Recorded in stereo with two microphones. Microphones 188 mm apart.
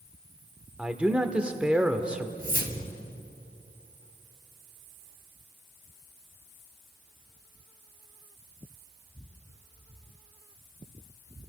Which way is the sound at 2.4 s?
60° right (ahead or behind).